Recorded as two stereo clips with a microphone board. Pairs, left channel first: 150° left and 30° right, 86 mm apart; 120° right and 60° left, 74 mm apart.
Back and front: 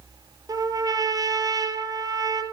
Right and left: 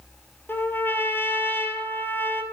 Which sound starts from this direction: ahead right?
A trumpet, at 0.5 s.